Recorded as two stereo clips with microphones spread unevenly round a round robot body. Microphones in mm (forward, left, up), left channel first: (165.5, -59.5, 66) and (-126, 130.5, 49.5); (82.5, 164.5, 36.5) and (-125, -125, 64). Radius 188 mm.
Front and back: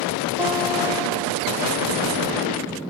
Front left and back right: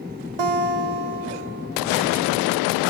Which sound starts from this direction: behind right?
A guitar, at 0.4 s.